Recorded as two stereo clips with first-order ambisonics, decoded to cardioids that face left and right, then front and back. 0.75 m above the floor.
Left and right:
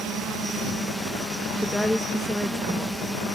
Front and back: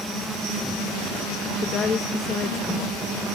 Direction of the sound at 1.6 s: 10° left.